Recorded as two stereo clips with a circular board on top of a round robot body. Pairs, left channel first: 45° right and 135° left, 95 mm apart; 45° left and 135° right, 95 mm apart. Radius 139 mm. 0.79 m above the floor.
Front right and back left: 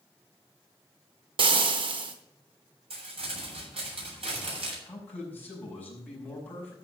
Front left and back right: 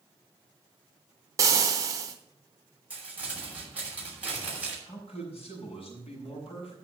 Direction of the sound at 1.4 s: 170° left.